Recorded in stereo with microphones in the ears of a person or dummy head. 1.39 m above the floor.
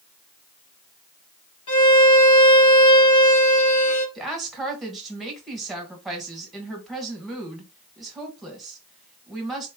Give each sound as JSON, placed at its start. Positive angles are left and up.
{"t": 1.7, "sound": "a violin", "side_deg": 35, "distance_m": 2.0}
{"t": 4.2, "sound": "a woman speaking", "side_deg": -5, "distance_m": 1.3}